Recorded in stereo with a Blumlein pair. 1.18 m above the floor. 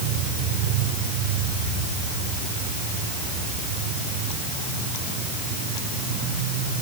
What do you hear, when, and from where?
Only background noise.